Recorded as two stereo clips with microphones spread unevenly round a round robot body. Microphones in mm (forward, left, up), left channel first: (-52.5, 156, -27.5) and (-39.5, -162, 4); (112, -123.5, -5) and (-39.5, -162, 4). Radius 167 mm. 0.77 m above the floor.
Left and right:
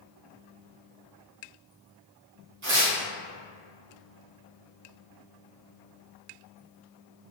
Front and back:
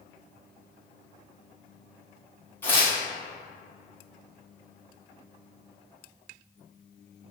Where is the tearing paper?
50° right, 1.0 m.